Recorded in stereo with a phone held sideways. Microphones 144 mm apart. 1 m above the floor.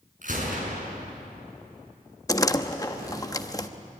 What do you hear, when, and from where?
0.2 s a gunshot: 60° right (ahead or behind), 6 m
2.3 s a door slam: 20° left (ahead or behind), 0.9 m